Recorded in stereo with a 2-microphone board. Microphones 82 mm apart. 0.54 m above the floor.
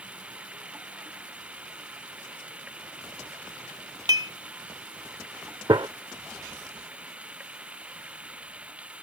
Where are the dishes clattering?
50° right (ahead or behind).